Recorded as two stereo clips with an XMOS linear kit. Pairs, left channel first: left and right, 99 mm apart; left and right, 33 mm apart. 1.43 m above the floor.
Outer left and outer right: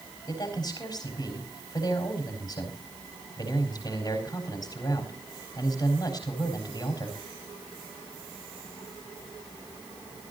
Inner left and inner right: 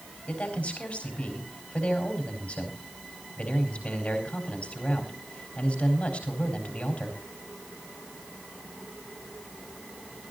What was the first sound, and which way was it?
A man speaking, 45° left (ahead or behind).